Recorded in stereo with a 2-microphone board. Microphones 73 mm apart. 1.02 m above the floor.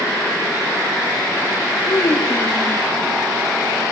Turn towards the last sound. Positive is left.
turn(degrees=60)  # may be behind; listen again after turning